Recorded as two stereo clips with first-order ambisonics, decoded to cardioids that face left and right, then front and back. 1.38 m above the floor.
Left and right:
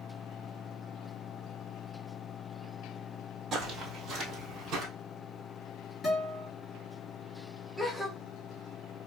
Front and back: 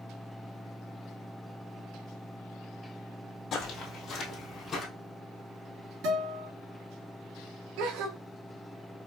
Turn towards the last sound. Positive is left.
turn(degrees=180)